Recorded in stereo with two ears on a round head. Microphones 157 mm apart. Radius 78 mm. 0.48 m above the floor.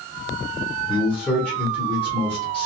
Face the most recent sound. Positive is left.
turn(degrees=5)  # may be behind; listen again after turning